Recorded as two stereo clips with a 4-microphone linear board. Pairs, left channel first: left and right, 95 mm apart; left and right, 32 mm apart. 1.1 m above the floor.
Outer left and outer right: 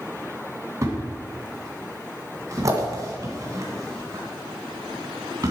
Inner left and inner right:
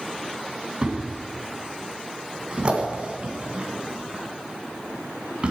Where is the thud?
35° right (ahead or behind), 2.0 m.